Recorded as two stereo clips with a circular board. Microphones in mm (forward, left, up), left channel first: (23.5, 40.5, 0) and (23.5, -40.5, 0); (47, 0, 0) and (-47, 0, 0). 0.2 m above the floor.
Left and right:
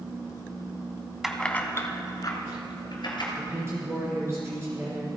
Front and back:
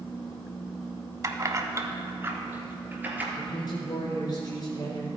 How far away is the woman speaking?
About 2.5 m.